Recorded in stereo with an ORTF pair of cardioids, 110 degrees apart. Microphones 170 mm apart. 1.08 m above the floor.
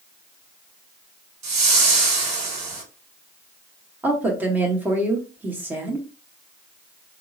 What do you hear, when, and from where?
1.4 s a whoosh: 45° right, 1.6 m
4.0 s a woman speaking: 10° right, 1.2 m